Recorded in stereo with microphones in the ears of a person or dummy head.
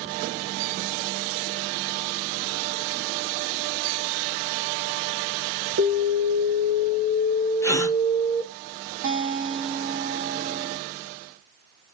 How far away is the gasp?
About 0.7 m.